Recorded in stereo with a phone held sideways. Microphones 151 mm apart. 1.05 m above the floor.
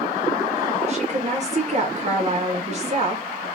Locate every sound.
0.9 s a woman speaking: 45° right (ahead or behind), 1.0 m